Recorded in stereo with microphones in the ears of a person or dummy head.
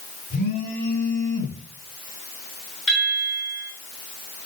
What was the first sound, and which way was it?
A phone buzzing, 40° left (ahead or behind).